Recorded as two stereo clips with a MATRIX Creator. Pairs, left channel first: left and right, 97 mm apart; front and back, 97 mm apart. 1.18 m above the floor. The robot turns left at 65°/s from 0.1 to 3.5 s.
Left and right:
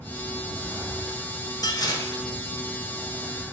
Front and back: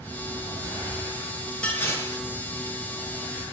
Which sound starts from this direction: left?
Dishes clattering, at 1.6 s.